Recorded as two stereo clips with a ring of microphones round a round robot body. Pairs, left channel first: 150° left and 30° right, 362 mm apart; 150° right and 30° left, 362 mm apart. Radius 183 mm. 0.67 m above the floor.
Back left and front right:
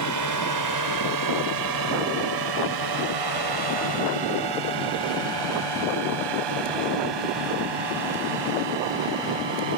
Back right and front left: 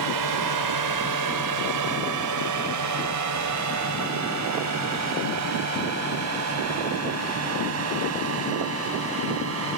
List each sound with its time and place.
0.0 s a drone: 5° left; by 9.8 s 25° right